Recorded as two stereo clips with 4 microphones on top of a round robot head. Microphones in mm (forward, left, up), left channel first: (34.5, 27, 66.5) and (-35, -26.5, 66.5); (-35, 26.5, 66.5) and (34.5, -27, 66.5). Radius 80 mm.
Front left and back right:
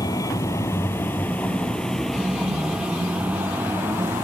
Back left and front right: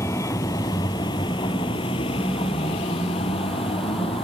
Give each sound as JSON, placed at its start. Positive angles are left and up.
{"t": 0.0, "sound": "a vehicle", "azimuth_deg": 85}